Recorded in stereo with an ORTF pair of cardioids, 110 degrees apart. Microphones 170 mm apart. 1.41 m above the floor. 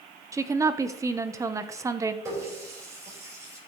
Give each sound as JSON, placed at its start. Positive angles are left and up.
{"t": 0.3, "sound": "a woman speaking", "azimuth_deg": -20, "distance_m": 1.0}
{"t": 2.2, "sound": "a running tap", "azimuth_deg": -15, "distance_m": 4.5}